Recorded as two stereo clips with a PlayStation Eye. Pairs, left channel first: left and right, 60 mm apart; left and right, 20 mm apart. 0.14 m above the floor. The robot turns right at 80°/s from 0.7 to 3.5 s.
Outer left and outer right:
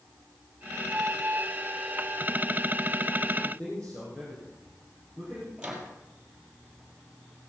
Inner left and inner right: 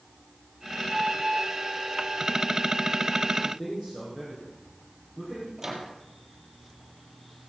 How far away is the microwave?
About 3.5 m.